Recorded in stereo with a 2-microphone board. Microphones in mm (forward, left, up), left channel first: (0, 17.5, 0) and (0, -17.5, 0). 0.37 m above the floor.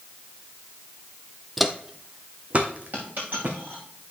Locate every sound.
1.6 s footsteps: centre (ahead or behind), 0.6 m; by 3.6 s 50° right (ahead or behind), 1.8 m
2.9 s a dropped coin: 65° right (ahead or behind), 5.5 m